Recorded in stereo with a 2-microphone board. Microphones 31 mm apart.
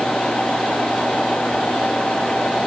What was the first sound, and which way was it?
Only background noise.